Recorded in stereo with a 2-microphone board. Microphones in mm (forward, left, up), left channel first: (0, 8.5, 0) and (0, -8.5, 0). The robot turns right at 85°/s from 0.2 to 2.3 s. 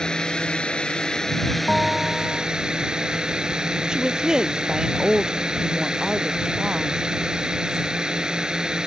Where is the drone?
55° left; by 8.9 s 130° right.